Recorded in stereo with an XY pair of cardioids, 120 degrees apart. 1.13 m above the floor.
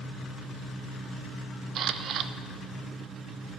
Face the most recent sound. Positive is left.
turn(degrees=-60)